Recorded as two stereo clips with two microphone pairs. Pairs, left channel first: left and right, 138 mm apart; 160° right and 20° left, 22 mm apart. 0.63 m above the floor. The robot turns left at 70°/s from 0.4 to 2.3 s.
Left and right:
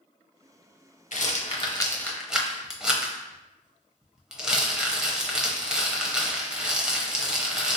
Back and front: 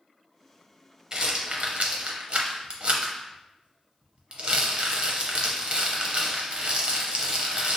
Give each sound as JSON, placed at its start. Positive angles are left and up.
{"t": 1.1, "sound": "a rattle", "azimuth_deg": 75, "distance_m": 0.7}